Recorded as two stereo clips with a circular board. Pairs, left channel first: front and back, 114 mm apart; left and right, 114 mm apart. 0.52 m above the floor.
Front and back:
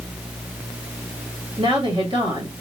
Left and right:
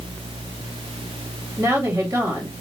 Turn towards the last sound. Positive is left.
turn(degrees=-145)